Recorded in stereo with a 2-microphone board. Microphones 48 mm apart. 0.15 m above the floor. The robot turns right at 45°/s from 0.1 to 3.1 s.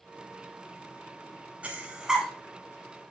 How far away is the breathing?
About 0.9 m.